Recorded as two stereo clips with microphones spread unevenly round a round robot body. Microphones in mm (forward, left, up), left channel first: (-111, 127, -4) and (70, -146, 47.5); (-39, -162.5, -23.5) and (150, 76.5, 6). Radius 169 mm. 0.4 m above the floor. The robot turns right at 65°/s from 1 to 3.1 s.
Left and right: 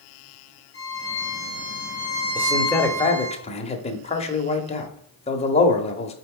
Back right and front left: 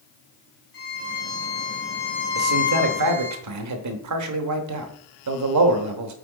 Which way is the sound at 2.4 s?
20° left.